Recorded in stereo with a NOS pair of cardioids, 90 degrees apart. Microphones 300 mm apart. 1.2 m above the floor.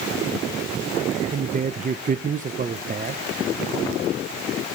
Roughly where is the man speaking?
Ahead right.